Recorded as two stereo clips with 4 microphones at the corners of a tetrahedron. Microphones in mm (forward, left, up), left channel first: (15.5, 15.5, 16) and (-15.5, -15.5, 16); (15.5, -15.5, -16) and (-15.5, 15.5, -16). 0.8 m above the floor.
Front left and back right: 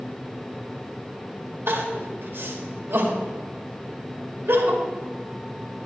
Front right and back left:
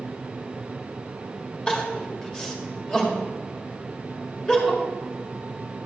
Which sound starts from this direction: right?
Crying, at 1.7 s.